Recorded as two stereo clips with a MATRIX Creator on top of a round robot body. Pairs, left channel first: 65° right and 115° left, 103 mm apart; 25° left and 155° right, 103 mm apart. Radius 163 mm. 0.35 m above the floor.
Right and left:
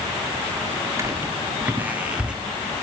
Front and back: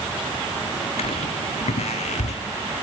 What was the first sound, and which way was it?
Footsteps, 50° left.